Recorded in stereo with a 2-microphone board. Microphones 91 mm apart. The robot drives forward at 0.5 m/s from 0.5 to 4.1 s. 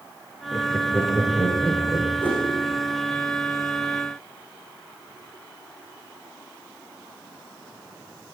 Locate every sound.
0.5 s laughter: 20° left (ahead or behind), 3 m; by 2.1 s 15° left (ahead or behind), 3.5 m
2.2 s a whoosh: 15° left (ahead or behind), 5 m